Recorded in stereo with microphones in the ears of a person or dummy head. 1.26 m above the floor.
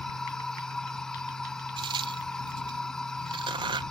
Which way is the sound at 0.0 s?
5° left (ahead or behind).